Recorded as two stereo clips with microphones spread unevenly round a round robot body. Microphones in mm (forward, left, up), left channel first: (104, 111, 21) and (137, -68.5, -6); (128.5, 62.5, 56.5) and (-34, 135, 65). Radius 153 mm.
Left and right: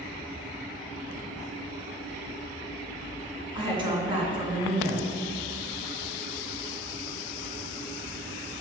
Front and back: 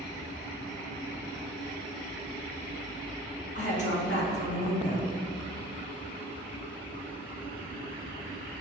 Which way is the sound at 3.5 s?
20° right.